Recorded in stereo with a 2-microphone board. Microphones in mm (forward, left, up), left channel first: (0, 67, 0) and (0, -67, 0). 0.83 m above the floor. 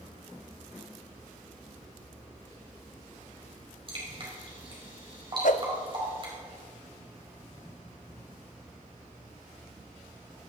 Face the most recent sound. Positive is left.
turn(degrees=65)  # may be behind; listen again after turning